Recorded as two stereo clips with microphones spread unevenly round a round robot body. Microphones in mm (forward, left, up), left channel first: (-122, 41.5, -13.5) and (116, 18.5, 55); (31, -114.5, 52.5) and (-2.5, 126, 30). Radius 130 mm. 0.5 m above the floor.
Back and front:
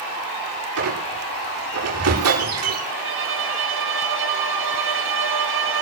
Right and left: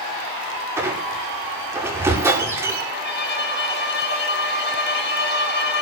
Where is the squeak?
20° left, 9.5 m.